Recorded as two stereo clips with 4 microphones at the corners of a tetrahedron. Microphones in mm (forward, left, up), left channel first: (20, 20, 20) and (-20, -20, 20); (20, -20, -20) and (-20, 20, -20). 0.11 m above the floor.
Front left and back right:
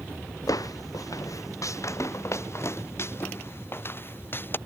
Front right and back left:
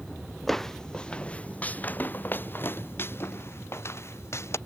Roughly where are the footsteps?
Ahead left.